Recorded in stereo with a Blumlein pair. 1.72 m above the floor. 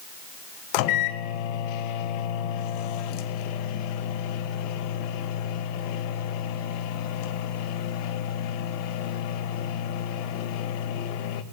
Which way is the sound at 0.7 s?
45° left.